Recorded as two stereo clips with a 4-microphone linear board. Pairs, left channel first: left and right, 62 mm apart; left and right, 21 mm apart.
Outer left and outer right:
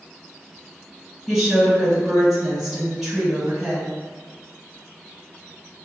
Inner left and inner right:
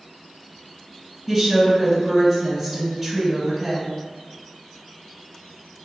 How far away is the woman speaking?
About 1.7 m.